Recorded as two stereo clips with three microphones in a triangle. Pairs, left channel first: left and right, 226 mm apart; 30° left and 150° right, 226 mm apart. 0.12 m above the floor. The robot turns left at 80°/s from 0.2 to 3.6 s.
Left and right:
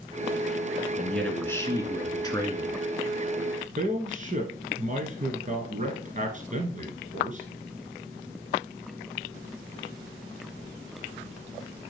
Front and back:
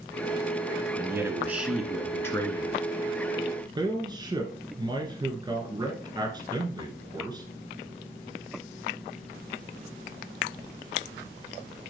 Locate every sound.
1.0 s a man speaking: 175° right, 1.3 m; by 2.8 s 35° left, 1.3 m
3.8 s a man speaking: 95° right, 1.4 m